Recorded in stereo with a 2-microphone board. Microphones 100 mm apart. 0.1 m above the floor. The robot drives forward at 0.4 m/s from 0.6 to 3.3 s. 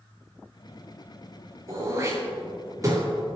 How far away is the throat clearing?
About 5.5 m.